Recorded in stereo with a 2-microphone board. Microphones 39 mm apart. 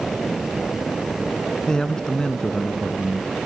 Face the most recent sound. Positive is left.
turn(degrees=20)  # may be behind; listen again after turning